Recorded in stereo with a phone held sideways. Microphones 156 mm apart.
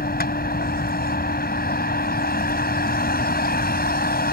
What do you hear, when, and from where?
0.0 s a vehicle: 85° left